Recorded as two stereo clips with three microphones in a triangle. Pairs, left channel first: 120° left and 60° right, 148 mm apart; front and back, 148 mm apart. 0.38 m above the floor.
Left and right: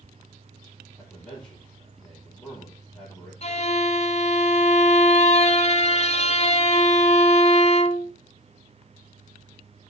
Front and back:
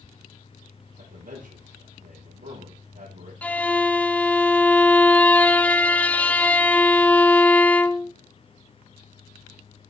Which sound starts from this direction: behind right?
A man speaking, at 1.0 s.